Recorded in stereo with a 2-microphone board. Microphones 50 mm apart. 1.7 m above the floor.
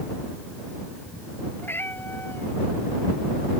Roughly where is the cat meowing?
Left.